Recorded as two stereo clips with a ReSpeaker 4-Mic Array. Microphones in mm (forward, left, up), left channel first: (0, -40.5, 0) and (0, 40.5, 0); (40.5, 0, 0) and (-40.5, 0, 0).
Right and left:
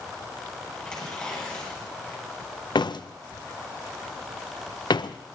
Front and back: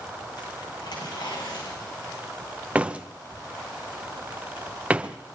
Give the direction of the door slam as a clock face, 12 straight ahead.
4 o'clock.